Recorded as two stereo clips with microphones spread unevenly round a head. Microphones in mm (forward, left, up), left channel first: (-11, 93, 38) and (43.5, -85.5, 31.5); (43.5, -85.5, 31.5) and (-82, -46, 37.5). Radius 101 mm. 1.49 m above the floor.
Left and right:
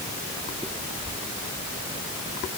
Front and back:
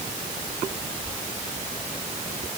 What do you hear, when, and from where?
Only background noise.